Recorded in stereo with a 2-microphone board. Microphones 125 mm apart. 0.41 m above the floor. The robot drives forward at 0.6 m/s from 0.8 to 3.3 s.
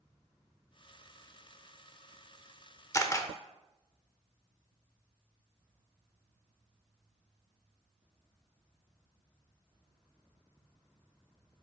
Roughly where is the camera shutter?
Left.